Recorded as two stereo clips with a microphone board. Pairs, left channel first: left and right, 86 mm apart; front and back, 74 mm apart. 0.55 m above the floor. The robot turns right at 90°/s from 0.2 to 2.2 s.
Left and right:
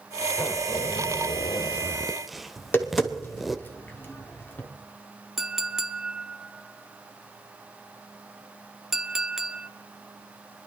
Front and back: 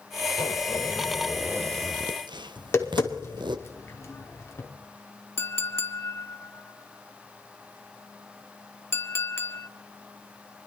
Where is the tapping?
35° left, 1.4 m.